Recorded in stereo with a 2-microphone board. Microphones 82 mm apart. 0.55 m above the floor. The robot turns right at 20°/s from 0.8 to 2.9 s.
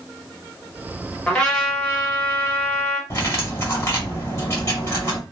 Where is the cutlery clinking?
30° left (ahead or behind), 1.7 m.